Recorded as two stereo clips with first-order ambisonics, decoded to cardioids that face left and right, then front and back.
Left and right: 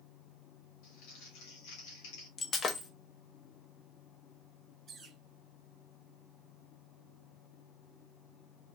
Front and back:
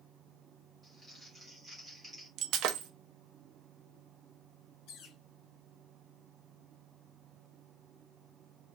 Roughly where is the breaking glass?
Behind left.